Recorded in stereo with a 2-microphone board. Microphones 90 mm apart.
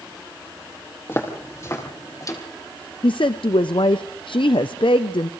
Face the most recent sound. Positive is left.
turn(degrees=70)  # may be behind; listen again after turning